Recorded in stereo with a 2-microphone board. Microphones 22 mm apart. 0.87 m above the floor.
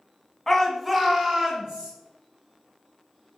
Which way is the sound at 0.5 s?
20° left (ahead or behind).